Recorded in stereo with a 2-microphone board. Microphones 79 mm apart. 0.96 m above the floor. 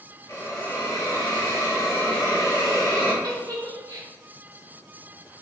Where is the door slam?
I don't hear a door slam.